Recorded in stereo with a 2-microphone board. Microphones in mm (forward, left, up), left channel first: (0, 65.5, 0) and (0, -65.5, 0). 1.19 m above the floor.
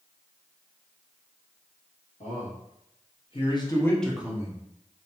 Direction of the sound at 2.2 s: 70° left (ahead or behind).